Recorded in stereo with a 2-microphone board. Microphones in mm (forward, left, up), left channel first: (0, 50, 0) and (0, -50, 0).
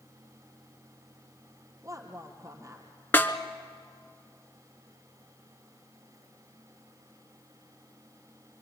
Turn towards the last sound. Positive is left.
turn(degrees=20)  # may be behind; listen again after turning